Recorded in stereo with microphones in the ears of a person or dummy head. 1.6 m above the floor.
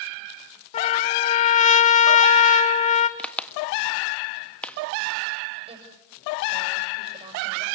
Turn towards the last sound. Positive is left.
turn(degrees=-20)  # may be behind; listen again after turning